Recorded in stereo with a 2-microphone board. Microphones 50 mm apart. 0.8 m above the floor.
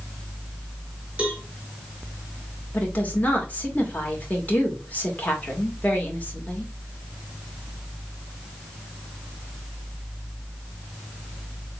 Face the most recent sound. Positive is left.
turn(degrees=35)  # may be behind; listen again after turning